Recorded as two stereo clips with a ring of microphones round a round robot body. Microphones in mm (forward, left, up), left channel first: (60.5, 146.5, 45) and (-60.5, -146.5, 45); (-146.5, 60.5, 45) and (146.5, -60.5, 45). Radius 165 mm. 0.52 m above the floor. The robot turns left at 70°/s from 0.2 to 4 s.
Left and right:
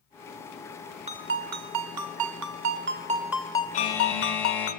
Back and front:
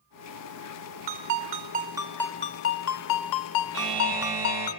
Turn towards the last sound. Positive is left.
turn(degrees=-20)